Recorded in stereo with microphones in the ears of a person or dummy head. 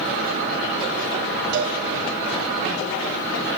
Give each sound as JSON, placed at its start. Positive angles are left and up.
{"t": 1.5, "sound": "a cowbell", "side_deg": -60, "distance_m": 5.5}